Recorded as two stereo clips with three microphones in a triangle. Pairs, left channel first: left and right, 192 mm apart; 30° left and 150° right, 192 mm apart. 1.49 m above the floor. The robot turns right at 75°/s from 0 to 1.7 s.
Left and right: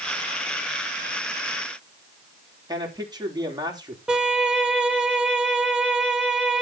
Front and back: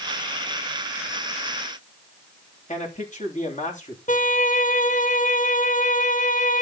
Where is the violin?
5° right, 1.7 m.